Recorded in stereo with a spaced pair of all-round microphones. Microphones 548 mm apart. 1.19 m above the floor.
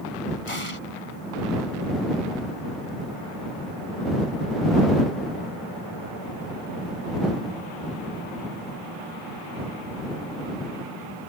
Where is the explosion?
65° left (ahead or behind).